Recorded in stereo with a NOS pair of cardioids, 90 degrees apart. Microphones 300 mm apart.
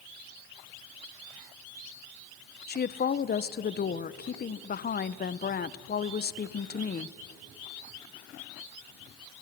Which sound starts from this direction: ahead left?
A woman speaking, at 2.7 s.